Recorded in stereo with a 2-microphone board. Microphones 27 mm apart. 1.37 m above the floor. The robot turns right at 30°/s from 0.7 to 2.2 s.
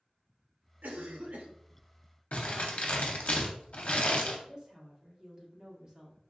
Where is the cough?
80° right, 0.7 m; by 1.5 s 65° right (ahead or behind), 0.7 m.